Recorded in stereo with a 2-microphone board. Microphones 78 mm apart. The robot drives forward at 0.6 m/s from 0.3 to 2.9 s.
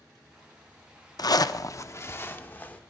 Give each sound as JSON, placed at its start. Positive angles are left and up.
{"t": 1.2, "sound": "a zipper", "side_deg": 55, "distance_m": 0.5}